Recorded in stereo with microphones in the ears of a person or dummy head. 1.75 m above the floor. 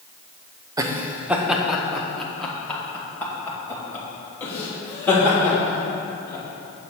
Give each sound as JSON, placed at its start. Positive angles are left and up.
{"t": 0.8, "sound": "laughter", "side_deg": -15, "distance_m": 0.6}